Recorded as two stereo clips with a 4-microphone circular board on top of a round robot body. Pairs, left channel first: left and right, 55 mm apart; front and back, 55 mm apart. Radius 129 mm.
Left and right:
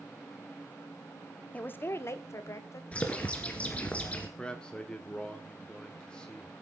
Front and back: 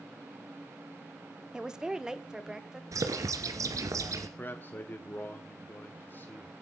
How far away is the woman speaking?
About 1.2 m.